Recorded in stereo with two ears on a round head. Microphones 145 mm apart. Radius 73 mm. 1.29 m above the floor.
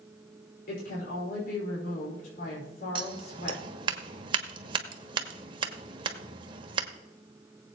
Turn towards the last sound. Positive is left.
turn(degrees=-30)  # may be behind; listen again after turning